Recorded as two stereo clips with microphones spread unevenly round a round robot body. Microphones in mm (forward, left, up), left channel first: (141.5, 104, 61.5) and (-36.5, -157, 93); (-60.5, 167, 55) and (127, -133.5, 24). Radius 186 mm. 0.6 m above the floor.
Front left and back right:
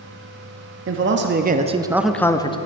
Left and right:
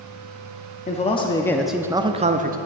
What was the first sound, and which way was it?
A man speaking, 170° right.